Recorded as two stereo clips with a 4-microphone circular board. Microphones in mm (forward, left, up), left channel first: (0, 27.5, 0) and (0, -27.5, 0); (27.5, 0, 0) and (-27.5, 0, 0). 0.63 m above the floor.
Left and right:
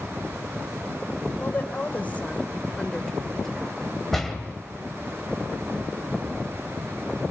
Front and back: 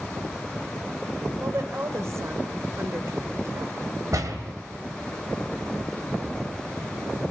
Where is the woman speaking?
145° left, 2.5 m; by 3.8 s straight behind, 1.7 m.